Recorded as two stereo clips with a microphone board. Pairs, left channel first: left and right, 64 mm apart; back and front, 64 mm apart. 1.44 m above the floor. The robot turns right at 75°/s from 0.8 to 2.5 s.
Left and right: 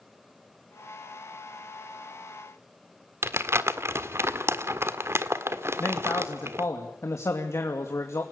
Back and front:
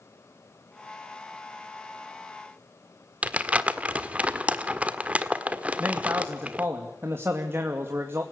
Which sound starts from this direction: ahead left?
A man speaking, at 5.8 s.